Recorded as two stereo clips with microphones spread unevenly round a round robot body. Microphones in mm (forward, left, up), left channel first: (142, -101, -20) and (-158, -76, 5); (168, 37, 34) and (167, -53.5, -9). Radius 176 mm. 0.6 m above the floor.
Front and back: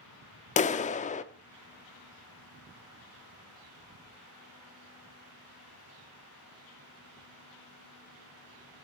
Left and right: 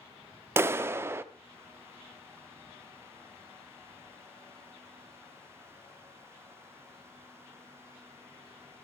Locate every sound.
0.6 s a clap: 65° right, 0.6 m